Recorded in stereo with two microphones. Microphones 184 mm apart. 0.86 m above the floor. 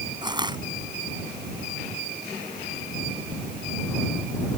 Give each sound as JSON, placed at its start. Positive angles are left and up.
{"t": 0.2, "sound": "crushing", "side_deg": -25}